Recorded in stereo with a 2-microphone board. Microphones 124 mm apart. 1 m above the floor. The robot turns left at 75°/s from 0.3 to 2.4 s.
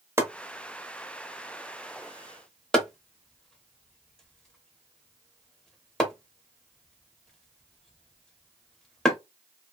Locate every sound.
0.2 s chopping: 20° right (ahead or behind), 0.9 m; by 9.2 s 5° left (ahead or behind), 0.9 m